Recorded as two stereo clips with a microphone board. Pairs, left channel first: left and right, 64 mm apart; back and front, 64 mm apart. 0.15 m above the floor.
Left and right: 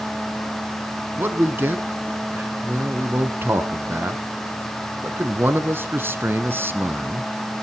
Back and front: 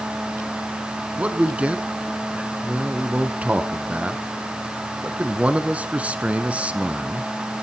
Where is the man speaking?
60° right, 1.3 m.